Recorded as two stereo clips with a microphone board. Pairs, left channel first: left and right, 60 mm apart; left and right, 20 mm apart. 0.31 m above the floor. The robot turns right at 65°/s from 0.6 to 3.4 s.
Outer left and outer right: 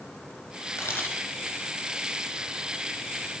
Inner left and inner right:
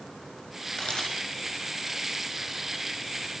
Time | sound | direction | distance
0.8 | a camera shutter | 45° left (ahead or behind) | 3.5 m